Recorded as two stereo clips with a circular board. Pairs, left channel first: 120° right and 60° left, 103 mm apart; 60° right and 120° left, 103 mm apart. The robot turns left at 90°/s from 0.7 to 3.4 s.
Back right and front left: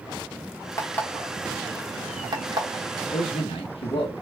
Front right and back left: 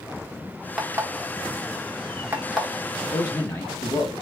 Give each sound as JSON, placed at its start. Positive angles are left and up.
{"t": 0.8, "sound": "an alarm clock", "azimuth_deg": -160, "distance_m": 0.9}
{"t": 3.1, "sound": "a man speaking", "azimuth_deg": -95, "distance_m": 0.9}